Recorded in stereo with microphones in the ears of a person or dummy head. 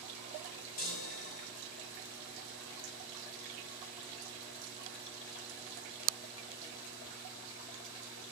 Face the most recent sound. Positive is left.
turn(degrees=50)  # may be behind; listen again after turning